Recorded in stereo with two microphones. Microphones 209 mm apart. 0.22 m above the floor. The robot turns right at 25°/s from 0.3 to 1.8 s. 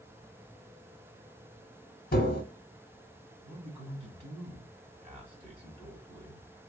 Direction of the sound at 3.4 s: 30° right (ahead or behind).